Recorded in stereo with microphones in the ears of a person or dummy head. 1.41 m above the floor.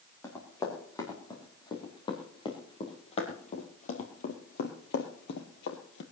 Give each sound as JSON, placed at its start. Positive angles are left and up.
{"t": 0.2, "sound": "running footsteps", "side_deg": 15, "distance_m": 5.0}